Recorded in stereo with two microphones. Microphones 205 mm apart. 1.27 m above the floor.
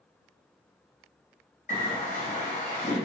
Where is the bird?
40° left (ahead or behind), 0.9 m.